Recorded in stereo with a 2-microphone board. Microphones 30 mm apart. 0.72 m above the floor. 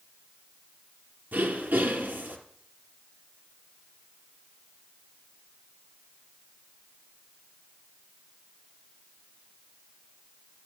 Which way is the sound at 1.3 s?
85° right.